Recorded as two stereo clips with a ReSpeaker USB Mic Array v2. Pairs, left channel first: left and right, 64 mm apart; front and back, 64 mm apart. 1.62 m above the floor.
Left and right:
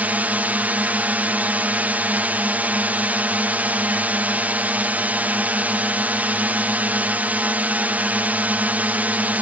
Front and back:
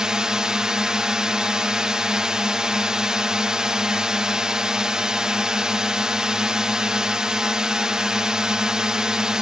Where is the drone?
115° right.